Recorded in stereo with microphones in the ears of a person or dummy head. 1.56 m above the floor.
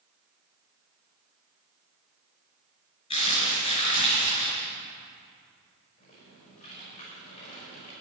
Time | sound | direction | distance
3.1 | crumpling | 35° left (ahead or behind) | 4.5 m
6.0 | typing on a keyboard | 45° left (ahead or behind) | 5.5 m